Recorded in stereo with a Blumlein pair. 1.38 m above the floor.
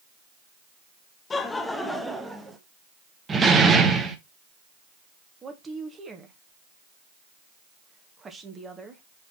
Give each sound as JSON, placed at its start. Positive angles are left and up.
{"t": 1.3, "sound": "laughter", "azimuth_deg": 20, "distance_m": 1.2}
{"t": 3.3, "sound": "a door slam", "azimuth_deg": -15, "distance_m": 1.3}
{"t": 5.4, "sound": "a woman speaking", "azimuth_deg": -15, "distance_m": 1.8}